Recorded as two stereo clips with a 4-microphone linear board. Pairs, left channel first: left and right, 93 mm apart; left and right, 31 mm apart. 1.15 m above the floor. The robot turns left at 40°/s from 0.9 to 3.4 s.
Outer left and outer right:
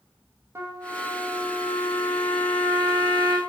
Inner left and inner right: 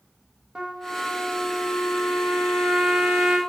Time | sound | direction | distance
0.6 | a trumpet | 30° right | 1.3 m